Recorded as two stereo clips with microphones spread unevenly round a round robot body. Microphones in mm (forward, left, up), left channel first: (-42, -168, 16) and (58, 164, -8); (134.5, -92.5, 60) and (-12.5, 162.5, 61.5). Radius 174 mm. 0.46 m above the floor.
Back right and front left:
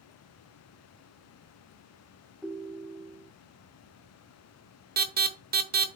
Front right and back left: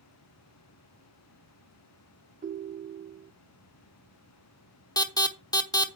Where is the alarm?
15° left, 1.0 m.